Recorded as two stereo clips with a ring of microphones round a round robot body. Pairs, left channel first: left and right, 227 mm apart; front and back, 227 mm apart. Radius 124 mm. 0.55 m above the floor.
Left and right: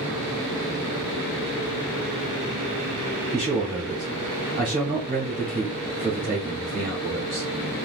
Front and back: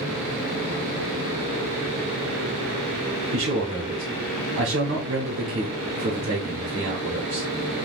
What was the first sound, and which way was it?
A man speaking, 160° right.